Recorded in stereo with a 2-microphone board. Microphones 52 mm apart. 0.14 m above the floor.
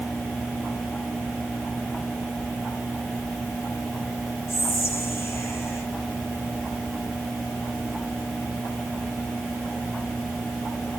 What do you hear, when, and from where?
4.5 s whispering: 55° left (ahead or behind), 4 m